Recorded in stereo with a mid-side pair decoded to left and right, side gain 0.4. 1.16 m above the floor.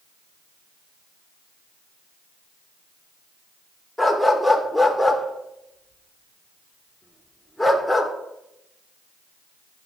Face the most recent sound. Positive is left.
turn(degrees=5)